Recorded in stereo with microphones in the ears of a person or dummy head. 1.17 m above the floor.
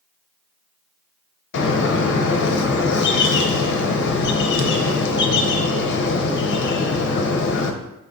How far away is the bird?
About 0.5 m.